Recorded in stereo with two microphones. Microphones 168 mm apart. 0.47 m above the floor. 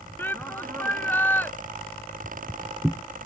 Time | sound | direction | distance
0.2 | a shout | 10° left (ahead or behind) | ?
2.2 | footsteps | 10° right (ahead or behind) | ?